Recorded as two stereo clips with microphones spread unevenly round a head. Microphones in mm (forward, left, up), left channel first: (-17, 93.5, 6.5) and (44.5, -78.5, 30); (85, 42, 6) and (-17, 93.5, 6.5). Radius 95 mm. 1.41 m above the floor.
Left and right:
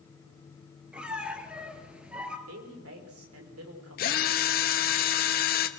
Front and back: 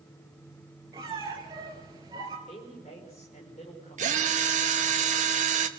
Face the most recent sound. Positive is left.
turn(degrees=155)